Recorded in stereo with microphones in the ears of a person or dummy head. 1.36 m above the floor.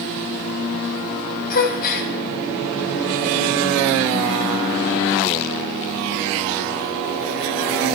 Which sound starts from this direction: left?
A gasp, at 1.5 s.